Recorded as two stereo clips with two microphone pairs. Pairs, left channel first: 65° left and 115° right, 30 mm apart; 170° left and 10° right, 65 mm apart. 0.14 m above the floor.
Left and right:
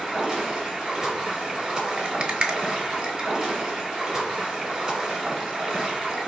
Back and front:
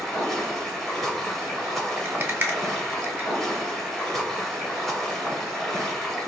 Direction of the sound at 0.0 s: 115° right.